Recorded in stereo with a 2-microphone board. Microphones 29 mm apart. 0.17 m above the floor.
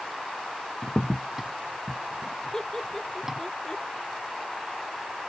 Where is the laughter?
15° left (ahead or behind).